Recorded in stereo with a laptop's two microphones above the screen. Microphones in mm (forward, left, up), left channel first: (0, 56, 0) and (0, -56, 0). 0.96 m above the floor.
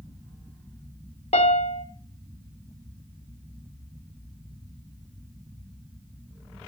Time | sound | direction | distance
1.3 | a piano | 75° left (ahead or behind) | 1.6 m